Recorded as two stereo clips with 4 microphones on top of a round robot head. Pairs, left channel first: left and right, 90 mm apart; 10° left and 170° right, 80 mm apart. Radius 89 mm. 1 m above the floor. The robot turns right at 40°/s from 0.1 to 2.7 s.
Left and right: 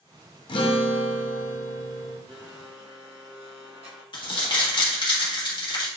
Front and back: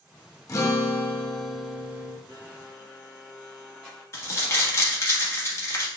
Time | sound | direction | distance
0.5 | a guitar | 55° left | 0.8 m
2.3 | a blender | 100° right | 1.7 m
4.1 | crumpling | 60° left | 1.4 m